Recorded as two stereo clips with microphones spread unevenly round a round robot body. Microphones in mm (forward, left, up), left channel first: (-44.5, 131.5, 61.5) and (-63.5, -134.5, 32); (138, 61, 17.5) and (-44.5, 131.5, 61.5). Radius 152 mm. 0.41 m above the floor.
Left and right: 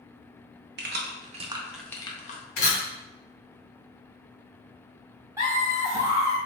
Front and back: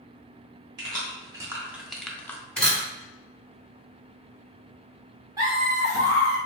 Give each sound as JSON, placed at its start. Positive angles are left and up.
{"t": 0.8, "sound": "keys jangling", "azimuth_deg": -125, "distance_m": 0.8}
{"t": 2.6, "sound": "a camera shutter", "azimuth_deg": 55, "distance_m": 1.8}
{"t": 5.4, "sound": "laughter", "azimuth_deg": -125, "distance_m": 1.4}